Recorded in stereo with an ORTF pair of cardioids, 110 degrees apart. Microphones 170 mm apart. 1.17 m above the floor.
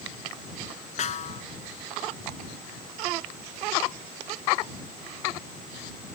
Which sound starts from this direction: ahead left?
A snare drum, at 1.0 s.